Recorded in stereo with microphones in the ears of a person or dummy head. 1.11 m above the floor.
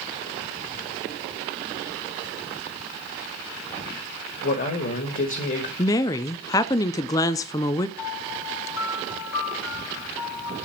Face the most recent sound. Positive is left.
turn(degrees=85)